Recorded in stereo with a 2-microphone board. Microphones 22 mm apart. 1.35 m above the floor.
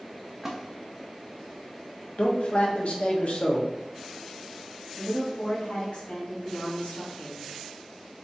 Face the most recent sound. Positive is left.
turn(degrees=60)  # may be behind; listen again after turning